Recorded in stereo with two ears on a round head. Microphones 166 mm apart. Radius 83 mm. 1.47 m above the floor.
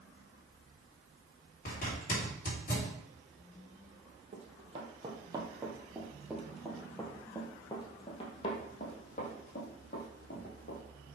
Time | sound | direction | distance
1.6 | a zipper | 45° left (ahead or behind) | 4 m
4.3 | running footsteps | 35° right (ahead or behind) | 2 m